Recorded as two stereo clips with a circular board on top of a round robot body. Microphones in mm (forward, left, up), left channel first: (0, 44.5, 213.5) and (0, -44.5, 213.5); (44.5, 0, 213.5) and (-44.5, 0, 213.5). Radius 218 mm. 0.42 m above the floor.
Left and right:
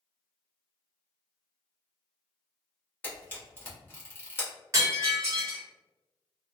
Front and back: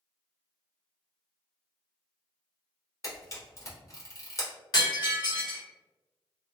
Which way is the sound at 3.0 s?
35° left.